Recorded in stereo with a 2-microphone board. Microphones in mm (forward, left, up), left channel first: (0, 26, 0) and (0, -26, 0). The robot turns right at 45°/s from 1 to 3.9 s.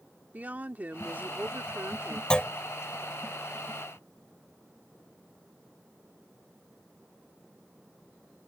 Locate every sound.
0.3 s a woman speaking: 140° right; by 2.2 s 85° right
2.3 s a clunk: 20° left (ahead or behind); by 2.5 s 25° left (ahead or behind)